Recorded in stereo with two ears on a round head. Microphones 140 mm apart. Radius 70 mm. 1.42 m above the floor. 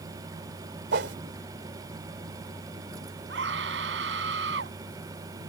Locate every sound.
0.9 s a whoosh: 75° right (ahead or behind)
3.3 s a scream: 90° right